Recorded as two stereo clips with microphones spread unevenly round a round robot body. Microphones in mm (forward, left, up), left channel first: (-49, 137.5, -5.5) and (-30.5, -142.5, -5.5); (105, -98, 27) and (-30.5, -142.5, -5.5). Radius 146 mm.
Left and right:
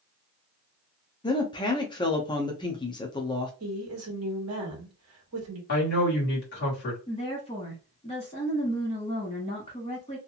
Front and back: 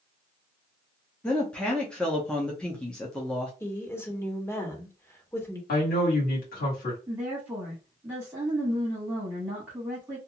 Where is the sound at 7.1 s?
150° left, 1.2 m.